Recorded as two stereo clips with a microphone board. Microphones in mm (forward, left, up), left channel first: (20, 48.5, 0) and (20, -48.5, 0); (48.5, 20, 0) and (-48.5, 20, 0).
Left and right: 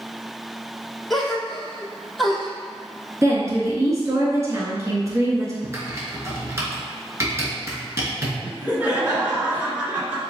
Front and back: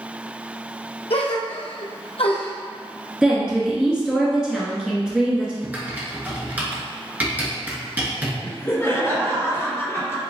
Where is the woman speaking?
105° right, 1.6 m.